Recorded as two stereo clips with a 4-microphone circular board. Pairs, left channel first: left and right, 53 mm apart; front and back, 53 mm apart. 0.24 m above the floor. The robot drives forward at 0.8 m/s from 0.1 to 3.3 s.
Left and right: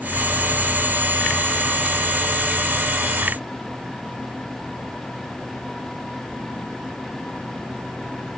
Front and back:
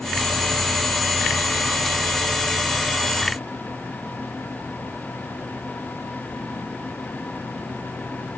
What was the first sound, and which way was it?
Only background noise.